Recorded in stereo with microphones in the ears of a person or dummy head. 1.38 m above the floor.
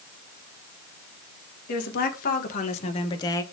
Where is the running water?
No running water in this recording.